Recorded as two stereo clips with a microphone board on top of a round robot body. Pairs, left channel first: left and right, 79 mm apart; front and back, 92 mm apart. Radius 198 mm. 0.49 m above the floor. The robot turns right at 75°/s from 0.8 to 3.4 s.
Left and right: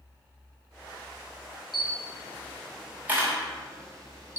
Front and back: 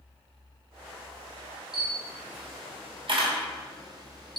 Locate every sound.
1.7 s a camera shutter: 100° left, 2 m; by 4.4 s 135° right, 2 m